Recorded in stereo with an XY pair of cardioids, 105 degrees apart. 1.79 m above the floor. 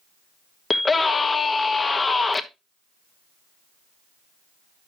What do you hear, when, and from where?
0.7 s a scream: 25° left, 1.1 m